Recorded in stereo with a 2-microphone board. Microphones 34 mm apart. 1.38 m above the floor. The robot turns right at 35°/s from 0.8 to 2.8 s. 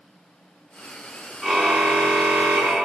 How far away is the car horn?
About 4 m.